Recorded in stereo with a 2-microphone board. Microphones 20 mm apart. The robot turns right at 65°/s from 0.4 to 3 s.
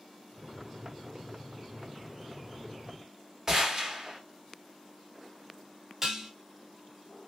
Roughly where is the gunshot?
Right.